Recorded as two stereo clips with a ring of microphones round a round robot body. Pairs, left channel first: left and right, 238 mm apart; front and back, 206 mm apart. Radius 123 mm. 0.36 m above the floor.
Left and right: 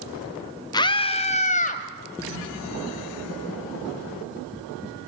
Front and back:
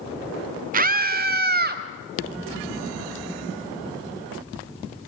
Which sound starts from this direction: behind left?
A scream, at 0.7 s.